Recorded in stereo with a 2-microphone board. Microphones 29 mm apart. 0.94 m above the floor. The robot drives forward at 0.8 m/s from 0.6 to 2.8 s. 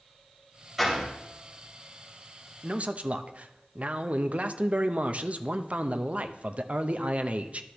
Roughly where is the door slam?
Centre.